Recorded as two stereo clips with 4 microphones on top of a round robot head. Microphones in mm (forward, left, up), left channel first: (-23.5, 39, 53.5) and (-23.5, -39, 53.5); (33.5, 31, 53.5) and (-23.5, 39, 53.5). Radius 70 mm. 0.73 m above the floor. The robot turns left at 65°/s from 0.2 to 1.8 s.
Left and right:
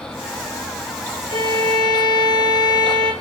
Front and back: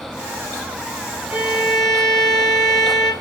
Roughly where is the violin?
Left.